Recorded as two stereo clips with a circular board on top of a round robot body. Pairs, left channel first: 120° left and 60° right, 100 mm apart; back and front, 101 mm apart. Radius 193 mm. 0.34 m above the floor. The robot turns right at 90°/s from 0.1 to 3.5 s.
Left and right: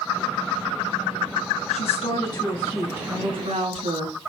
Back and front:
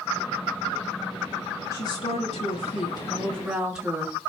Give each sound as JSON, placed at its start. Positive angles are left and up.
{"t": 1.7, "sound": "a woman speaking", "azimuth_deg": 115, "distance_m": 5.5}